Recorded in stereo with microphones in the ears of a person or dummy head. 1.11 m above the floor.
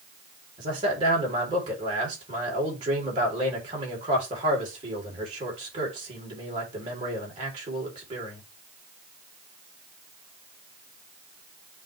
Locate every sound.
0.6 s a man speaking: 25° right (ahead or behind), 4 m